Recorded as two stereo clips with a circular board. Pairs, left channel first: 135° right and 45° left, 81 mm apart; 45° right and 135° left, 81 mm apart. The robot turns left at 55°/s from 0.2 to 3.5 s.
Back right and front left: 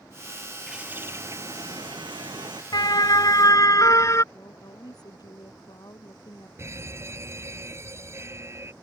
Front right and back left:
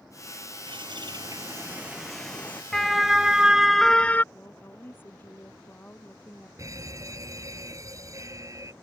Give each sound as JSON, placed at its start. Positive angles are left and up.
{"t": 0.7, "sound": "a bird", "azimuth_deg": 130}
{"t": 2.7, "sound": "a siren", "azimuth_deg": -130}
{"t": 4.3, "sound": "a woman speaking", "azimuth_deg": -110}
{"t": 6.6, "sound": "a fire alarm", "azimuth_deg": 95}